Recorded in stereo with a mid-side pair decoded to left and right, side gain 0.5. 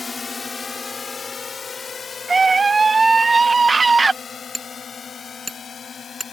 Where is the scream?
30° right.